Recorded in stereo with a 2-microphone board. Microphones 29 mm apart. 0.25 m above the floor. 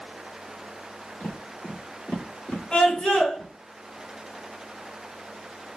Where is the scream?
45° left (ahead or behind), 2.5 m.